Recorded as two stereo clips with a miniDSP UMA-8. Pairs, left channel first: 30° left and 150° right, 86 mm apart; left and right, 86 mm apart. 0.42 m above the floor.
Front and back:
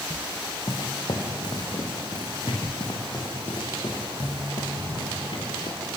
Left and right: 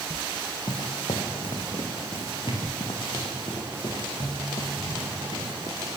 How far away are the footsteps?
About 4 m.